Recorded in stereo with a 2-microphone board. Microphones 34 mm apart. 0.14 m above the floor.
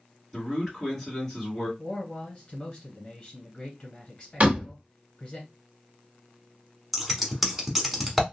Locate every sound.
0.3 s a man speaking: 10° left (ahead or behind), 2 m
1.8 s a man speaking: 25° left (ahead or behind), 1.2 m
4.4 s a door slam: 40° right (ahead or behind), 1.2 m
6.9 s scissors: 5° right (ahead or behind), 0.9 m